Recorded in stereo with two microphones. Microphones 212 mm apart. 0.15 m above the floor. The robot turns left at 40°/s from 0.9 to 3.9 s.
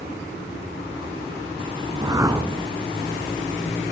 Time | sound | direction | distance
1.9 | a whoosh | 20° right (ahead or behind) | 1.4 m